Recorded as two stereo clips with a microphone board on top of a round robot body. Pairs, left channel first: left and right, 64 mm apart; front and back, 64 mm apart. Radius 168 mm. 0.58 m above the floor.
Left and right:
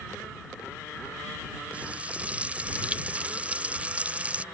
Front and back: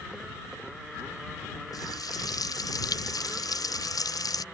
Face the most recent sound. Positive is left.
turn(degrees=-20)